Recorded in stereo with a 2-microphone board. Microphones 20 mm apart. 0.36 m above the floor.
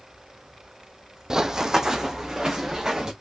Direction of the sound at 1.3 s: 30° right (ahead or behind).